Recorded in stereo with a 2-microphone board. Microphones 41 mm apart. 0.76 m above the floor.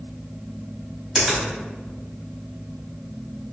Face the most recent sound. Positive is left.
turn(degrees=-15)  # may be behind; listen again after turning